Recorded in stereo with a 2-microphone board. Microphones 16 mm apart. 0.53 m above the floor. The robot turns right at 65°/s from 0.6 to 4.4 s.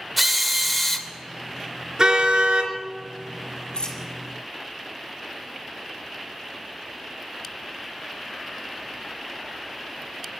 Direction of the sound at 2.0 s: 140° right.